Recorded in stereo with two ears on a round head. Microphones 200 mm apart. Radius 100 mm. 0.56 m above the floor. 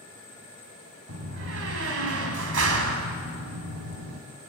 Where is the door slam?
65° right (ahead or behind), 2.5 m.